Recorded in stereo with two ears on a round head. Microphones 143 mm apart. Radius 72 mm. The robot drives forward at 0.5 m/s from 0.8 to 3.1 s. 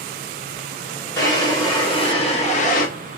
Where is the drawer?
20° left (ahead or behind), 1.2 m; by 2.9 s 55° left (ahead or behind), 0.5 m.